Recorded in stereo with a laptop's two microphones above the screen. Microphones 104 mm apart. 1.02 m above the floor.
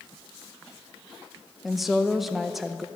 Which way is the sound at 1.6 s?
Centre (ahead or behind).